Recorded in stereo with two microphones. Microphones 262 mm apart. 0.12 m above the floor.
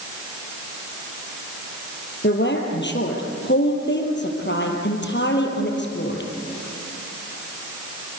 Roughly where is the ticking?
No ticking in this recording.